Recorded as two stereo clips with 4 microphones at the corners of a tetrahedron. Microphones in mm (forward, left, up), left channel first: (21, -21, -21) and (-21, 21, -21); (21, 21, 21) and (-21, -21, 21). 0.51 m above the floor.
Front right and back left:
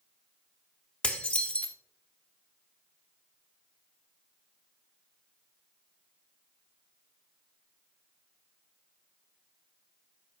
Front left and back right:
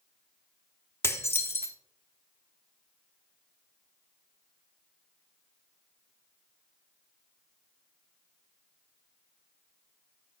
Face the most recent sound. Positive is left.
turn(degrees=20)